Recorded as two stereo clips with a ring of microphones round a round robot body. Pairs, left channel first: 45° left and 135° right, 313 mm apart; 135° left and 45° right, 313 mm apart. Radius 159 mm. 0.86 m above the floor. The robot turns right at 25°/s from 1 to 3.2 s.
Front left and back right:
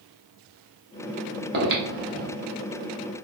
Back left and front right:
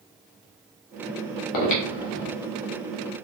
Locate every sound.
1.5 s breathing: 165° left, 1.0 m; by 2.3 s 175° right, 1.0 m